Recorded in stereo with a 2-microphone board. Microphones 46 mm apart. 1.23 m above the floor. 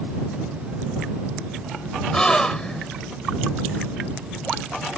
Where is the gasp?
15° left (ahead or behind).